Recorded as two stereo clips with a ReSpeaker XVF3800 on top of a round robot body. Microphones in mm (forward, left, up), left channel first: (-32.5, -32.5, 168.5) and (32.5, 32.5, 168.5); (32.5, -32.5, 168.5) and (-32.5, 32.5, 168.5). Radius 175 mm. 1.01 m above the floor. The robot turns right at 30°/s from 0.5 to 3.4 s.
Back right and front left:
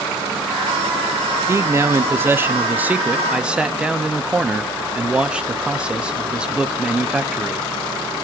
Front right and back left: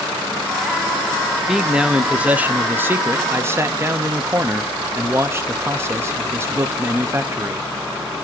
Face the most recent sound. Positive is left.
turn(degrees=115)